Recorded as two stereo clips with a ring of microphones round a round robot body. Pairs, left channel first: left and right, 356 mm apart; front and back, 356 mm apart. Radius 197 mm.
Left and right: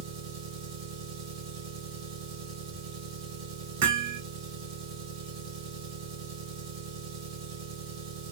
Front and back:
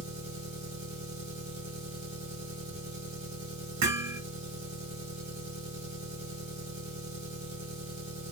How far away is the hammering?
About 1.8 m.